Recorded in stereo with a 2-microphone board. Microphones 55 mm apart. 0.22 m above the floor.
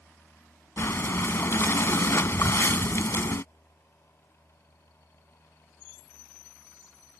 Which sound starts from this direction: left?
Breathing, at 0.8 s.